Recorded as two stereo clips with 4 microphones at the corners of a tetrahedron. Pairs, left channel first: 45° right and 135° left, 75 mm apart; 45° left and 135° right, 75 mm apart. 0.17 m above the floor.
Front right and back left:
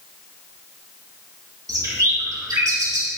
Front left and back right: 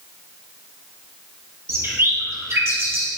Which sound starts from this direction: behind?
A bird, at 1.7 s.